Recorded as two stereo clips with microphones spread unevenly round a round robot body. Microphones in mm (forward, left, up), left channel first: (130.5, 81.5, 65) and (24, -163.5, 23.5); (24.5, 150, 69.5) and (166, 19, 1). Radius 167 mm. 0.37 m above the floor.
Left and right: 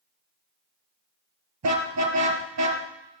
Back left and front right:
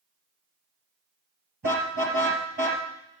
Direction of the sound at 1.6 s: 95° right.